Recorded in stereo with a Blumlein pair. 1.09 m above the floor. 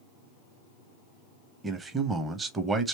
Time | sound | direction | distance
1.6 | a man speaking | 15° right | 0.8 m